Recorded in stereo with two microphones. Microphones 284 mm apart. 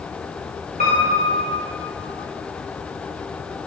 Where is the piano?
30° right (ahead or behind), 7 m.